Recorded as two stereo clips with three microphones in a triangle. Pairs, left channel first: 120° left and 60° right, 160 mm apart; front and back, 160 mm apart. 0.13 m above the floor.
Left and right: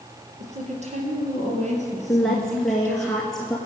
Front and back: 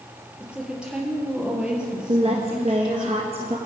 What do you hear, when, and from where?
0.4 s a woman speaking: 95° right, 3.5 m
2.1 s a woman speaking: 155° right, 1.6 m